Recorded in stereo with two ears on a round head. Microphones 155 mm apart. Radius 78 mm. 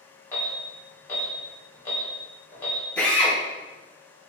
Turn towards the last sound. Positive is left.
turn(degrees=10)  # may be behind; listen again after turning